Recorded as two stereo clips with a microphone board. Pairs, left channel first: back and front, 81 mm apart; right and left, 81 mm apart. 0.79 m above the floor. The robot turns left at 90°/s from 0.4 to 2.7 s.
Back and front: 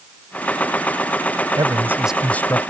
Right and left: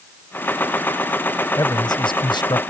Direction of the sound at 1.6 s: 40° right.